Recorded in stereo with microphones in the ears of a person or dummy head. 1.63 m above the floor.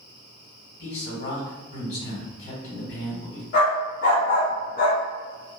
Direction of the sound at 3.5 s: 55° left (ahead or behind).